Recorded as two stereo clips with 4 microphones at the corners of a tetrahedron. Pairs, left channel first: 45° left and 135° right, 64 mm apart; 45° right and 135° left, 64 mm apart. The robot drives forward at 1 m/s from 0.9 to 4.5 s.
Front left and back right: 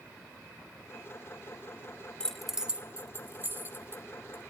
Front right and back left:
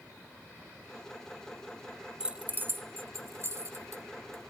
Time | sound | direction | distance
2.2 | keys jangling | 85° left | 0.6 m